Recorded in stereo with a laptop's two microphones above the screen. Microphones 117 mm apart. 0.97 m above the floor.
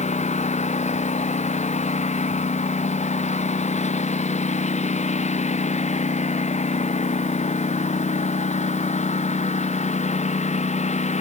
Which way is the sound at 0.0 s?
75° left (ahead or behind).